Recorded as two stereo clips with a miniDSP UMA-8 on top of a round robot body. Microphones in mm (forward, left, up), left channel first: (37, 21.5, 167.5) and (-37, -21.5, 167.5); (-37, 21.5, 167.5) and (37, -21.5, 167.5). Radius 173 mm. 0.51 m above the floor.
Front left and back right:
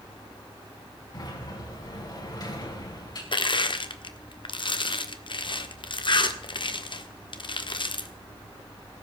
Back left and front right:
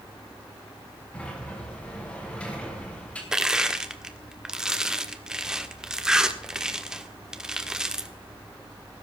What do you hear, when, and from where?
1.1 s a sliding door: 75° left, 5 m
3.3 s crushing: 55° left, 1.6 m